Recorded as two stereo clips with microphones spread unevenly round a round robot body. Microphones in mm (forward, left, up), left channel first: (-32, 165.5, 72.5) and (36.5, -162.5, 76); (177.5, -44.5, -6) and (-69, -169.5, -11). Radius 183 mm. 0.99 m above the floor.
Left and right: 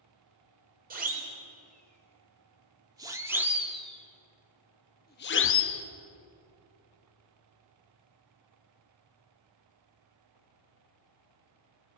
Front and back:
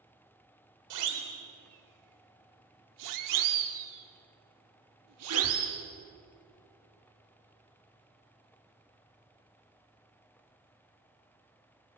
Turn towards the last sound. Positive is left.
turn(degrees=145)